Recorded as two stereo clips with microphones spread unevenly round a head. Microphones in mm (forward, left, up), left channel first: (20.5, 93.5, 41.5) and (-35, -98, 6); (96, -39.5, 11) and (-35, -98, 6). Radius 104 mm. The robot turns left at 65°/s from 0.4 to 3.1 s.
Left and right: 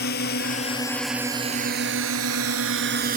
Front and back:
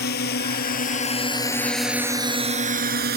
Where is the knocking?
No knocking in this recording.